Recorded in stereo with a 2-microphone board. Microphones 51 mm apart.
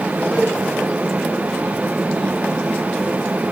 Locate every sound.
0.3 s a cowbell: 20° left (ahead or behind), 6.5 m